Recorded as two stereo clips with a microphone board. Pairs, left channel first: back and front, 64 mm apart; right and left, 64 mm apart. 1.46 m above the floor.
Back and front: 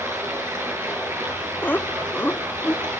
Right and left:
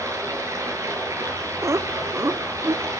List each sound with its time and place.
0.0 s running water: 50° left, 9.5 m
1.6 s laughter: 125° left, 1.0 m